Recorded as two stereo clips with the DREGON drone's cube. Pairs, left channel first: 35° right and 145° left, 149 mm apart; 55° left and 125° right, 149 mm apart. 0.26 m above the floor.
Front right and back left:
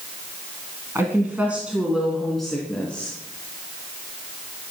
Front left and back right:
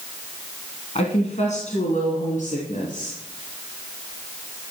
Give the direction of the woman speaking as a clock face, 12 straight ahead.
9 o'clock.